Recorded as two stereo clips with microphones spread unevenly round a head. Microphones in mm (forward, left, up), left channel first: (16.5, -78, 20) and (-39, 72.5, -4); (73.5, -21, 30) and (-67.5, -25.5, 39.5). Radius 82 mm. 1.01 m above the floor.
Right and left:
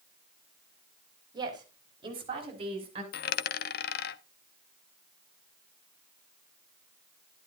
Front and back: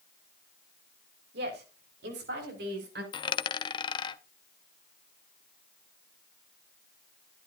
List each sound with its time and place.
1.3 s a woman speaking: 175° left, 4 m; by 3.0 s 165° left, 6 m
3.1 s a dropped coin: 55° right, 0.6 m